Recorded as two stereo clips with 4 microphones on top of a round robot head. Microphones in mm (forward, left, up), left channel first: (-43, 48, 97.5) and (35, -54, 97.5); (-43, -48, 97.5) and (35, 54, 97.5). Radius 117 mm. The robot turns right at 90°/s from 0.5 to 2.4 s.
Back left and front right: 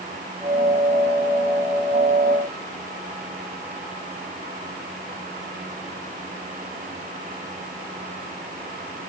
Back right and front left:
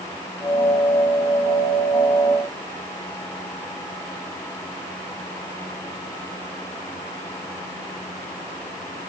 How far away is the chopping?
No chopping in this recording.